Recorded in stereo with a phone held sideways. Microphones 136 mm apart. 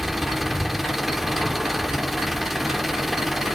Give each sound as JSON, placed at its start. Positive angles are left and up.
{"t": 0.0, "sound": "an engine running", "side_deg": 0, "distance_m": 0.9}